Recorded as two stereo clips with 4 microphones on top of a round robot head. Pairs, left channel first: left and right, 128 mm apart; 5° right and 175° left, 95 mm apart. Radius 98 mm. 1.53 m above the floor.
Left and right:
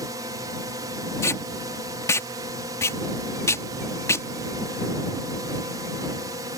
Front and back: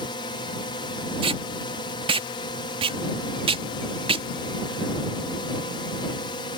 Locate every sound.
0.0 s a drone: 30° right
1.2 s tape being pulled: 160° left